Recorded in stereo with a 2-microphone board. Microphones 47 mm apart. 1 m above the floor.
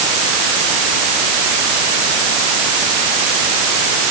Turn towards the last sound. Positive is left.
No sound to turn to.